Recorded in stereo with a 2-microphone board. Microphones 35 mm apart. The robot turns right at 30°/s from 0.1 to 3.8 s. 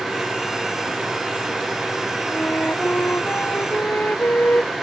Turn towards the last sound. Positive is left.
turn(degrees=105)